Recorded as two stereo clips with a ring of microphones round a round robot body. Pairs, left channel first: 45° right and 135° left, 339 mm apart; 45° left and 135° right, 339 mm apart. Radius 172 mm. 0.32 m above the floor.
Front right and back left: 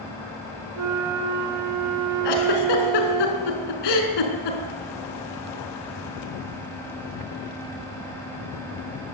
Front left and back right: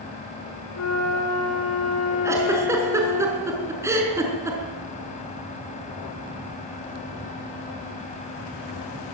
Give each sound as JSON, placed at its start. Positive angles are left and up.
{"t": 0.8, "sound": "a flute", "azimuth_deg": 95, "distance_m": 4.0}
{"t": 2.2, "sound": "a giggle", "azimuth_deg": -55, "distance_m": 4.5}